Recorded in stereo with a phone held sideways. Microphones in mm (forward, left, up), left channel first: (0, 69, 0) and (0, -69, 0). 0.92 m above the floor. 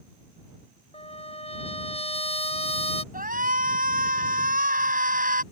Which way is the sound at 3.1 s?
75° right (ahead or behind).